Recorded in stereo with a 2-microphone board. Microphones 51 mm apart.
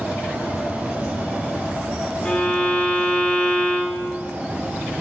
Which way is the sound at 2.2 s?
25° left (ahead or behind).